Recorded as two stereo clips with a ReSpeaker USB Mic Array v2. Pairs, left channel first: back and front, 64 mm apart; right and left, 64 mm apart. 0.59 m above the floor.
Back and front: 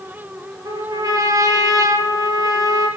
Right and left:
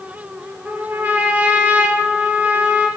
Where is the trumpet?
25° left, 4 m.